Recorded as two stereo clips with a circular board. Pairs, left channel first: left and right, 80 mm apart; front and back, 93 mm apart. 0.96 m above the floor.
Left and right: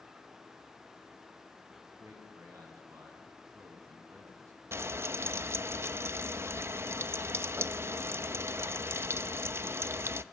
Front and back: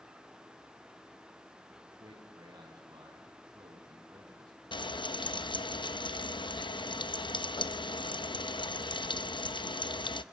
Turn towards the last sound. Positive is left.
turn(degrees=-30)